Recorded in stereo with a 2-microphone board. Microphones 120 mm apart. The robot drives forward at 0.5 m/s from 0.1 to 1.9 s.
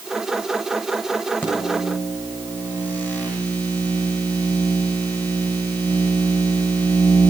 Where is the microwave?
15° left (ahead or behind), 7.5 m.